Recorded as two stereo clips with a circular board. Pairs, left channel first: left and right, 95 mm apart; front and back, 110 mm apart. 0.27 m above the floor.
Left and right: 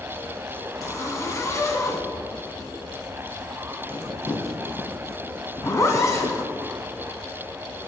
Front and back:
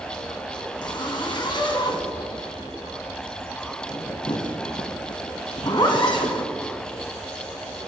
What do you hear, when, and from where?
0.8 s a zipper: 35° left, 1.3 m